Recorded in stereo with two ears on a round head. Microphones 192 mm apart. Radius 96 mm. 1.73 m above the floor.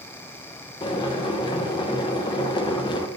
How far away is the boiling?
About 0.8 m.